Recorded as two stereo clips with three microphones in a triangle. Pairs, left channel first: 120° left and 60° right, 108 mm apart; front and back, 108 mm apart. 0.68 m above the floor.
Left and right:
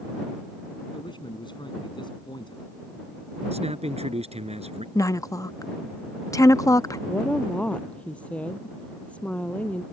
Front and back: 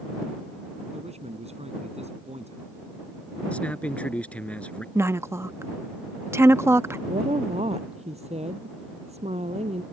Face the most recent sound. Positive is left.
turn(degrees=-160)